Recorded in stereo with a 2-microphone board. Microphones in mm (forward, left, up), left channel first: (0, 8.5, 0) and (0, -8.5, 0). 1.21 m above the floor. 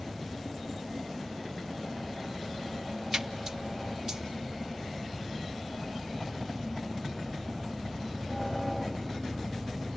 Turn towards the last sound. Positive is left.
turn(degrees=-30)  # may be behind; listen again after turning